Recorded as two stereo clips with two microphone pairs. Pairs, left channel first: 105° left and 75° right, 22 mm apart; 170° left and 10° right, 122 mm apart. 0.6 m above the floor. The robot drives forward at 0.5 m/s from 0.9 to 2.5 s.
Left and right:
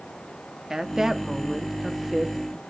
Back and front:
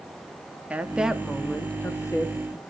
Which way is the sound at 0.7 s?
65° right.